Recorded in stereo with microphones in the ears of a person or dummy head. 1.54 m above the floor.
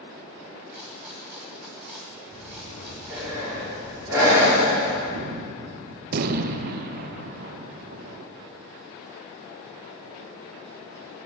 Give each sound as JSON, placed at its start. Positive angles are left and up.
{"t": 0.7, "sound": "a rattle", "side_deg": 0, "distance_m": 1.9}
{"t": 2.3, "sound": "breathing", "side_deg": -10, "distance_m": 4.5}
{"t": 5.1, "sound": "a gunshot", "side_deg": -60, "distance_m": 0.6}